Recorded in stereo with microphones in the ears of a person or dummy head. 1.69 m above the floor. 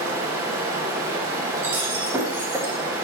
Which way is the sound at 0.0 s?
15° right (ahead or behind).